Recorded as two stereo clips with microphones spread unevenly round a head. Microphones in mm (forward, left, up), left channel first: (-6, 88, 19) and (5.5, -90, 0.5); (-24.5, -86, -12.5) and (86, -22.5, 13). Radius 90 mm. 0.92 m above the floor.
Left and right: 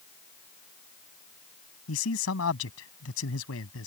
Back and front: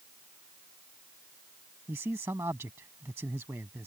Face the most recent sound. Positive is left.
turn(degrees=105)